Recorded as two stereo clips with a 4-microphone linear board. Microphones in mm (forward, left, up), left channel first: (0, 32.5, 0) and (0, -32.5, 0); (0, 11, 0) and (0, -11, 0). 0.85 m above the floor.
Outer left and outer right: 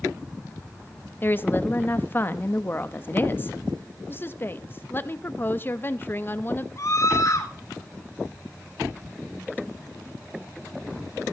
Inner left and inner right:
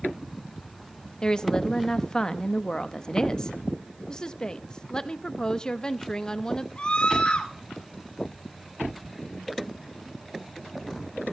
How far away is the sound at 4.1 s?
About 0.7 m.